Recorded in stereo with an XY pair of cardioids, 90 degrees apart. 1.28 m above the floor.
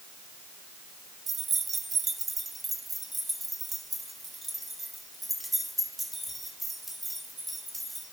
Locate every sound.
1.3 s keys jangling: 50° right, 0.6 m; by 8.0 s 5° right, 4 m